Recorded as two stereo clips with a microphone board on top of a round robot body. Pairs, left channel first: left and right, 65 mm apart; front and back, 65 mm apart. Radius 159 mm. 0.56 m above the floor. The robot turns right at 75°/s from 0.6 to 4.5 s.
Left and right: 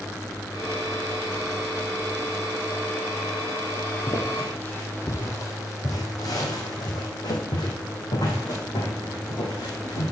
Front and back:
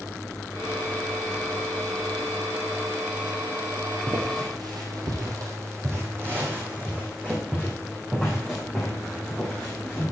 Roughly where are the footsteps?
Behind left.